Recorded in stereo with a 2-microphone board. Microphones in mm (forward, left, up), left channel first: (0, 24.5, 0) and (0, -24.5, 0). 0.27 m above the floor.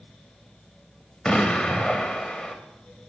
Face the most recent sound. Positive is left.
turn(degrees=15)  # may be behind; listen again after turning